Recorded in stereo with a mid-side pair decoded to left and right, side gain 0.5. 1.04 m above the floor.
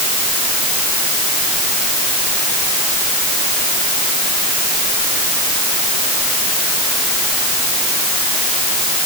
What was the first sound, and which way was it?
Only background noise.